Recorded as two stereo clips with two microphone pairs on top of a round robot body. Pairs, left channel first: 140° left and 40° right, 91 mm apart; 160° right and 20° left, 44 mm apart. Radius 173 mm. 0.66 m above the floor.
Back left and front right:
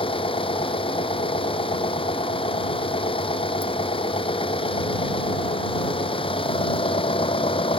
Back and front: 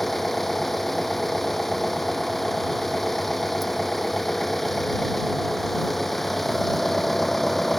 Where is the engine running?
120° left.